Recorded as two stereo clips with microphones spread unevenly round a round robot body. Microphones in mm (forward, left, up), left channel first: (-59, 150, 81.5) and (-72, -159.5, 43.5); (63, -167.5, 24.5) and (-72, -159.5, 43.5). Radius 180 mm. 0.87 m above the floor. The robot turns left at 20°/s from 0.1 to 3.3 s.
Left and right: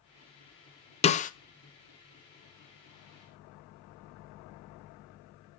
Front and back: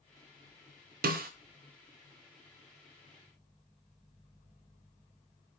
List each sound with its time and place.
1.0 s a snare drum: 160° left, 0.6 m; by 1.3 s 155° left, 0.6 m